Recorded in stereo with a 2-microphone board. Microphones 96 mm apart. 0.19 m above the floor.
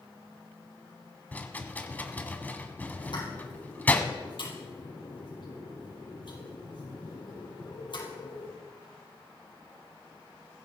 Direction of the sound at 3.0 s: 55° left (ahead or behind).